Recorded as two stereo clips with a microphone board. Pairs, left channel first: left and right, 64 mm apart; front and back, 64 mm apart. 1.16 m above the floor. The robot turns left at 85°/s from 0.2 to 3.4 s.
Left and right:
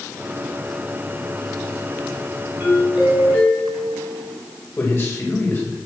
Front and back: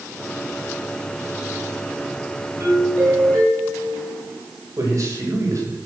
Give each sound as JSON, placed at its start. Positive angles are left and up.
{"t": 2.6, "sound": "a doorbell", "azimuth_deg": -150, "distance_m": 7.0}
{"t": 4.8, "sound": "a man speaking", "azimuth_deg": 145, "distance_m": 6.0}